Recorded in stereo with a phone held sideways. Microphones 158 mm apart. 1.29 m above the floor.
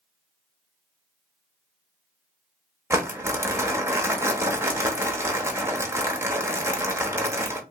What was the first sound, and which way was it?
Crumpling, 15° right (ahead or behind).